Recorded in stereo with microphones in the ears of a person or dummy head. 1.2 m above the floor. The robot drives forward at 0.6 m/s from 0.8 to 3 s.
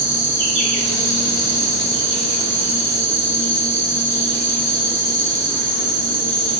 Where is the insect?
45° left (ahead or behind), 3.5 m; by 6.6 s 35° left (ahead or behind), 4.5 m.